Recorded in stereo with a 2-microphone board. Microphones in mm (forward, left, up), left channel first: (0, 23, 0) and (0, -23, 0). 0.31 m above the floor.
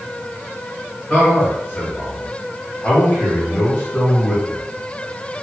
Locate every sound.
1.1 s a man speaking: 35° left (ahead or behind), 1.5 m; by 4.6 s 50° left (ahead or behind), 2.5 m